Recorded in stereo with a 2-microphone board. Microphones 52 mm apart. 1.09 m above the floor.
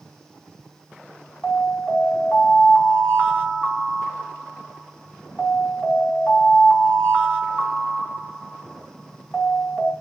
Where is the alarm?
30° left (ahead or behind), 1.8 m.